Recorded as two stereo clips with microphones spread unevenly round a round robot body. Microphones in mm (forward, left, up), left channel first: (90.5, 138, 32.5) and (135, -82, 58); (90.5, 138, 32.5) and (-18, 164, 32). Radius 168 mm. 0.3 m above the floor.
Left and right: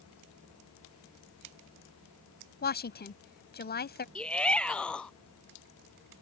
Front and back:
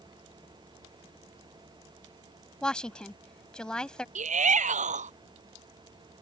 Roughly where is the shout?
Behind.